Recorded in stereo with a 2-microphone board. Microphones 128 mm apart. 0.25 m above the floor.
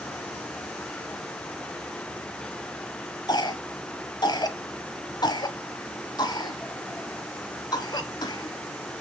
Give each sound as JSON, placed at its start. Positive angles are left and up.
{"t": 3.3, "sound": "a cough", "side_deg": 35, "distance_m": 1.3}